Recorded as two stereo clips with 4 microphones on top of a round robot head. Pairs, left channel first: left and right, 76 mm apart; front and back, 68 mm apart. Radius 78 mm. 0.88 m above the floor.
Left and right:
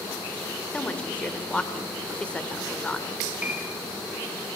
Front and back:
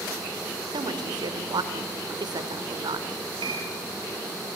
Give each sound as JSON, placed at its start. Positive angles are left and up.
{"t": 0.7, "sound": "a woman speaking", "azimuth_deg": 165, "distance_m": 3.5}
{"t": 3.4, "sound": "a piano", "azimuth_deg": -165, "distance_m": 6.0}